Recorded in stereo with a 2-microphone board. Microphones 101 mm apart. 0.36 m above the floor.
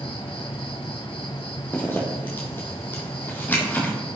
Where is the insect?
65° left (ahead or behind), 1.4 m.